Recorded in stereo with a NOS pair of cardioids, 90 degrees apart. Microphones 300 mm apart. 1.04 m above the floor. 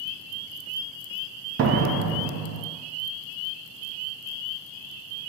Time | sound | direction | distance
1.6 | a door slam | 50° right | 0.6 m